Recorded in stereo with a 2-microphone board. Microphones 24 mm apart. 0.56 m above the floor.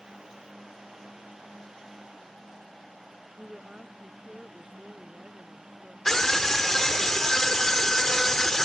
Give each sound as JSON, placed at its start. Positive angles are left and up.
{"t": 3.4, "sound": "a woman speaking", "side_deg": -30}
{"t": 6.0, "sound": "a scream", "side_deg": 20}